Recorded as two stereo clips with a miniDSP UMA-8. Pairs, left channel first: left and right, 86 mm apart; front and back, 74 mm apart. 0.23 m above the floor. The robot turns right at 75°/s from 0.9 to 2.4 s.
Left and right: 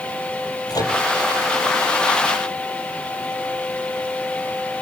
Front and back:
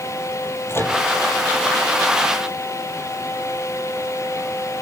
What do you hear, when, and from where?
0.7 s a microwave: 55° left, 5 m; by 1.0 s 60° left, 5 m